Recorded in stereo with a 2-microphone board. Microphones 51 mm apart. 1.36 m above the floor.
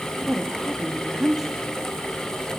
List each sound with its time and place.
0.2 s a woman speaking: 10° right (ahead or behind), 2.5 m